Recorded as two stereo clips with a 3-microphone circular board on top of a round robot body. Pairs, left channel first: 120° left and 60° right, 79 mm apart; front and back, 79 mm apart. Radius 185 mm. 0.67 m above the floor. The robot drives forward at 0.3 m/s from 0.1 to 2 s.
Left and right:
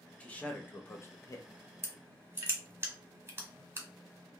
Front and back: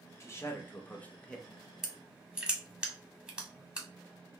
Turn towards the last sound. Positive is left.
turn(degrees=-105)